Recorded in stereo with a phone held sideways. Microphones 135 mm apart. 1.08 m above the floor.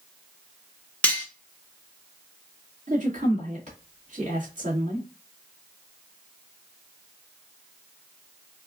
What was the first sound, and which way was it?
Cutlery clinking, 10° left (ahead or behind).